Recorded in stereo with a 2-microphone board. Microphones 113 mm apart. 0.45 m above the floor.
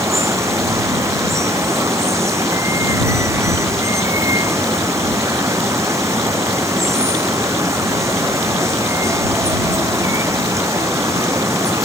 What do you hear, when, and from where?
0.0 s running water: 25° right (ahead or behind)